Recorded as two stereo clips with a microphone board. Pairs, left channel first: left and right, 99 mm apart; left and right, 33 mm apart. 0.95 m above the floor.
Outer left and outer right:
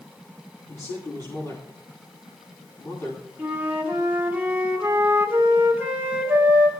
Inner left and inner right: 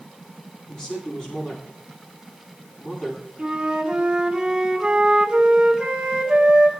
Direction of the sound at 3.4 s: 20° right (ahead or behind).